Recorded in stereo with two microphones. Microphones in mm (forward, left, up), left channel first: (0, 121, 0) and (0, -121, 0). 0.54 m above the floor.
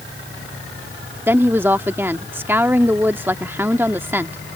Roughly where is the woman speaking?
Centre.